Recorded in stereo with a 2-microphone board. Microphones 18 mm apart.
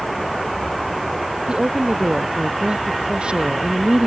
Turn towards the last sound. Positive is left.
turn(degrees=-80)